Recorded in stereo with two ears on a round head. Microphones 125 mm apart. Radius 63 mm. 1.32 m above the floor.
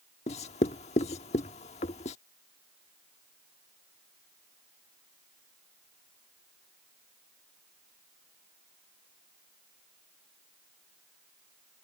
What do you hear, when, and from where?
0.3 s writing: 50° left (ahead or behind)